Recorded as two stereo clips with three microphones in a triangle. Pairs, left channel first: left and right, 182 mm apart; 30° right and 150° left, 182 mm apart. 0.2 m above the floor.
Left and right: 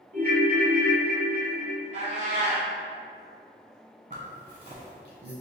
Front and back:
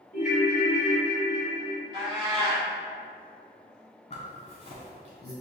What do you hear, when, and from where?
0.1 s a ringtone: 60° right, 0.8 m
1.9 s a cat meowing: 145° right, 1.4 m
4.1 s a zipper: 70° right, 1.1 m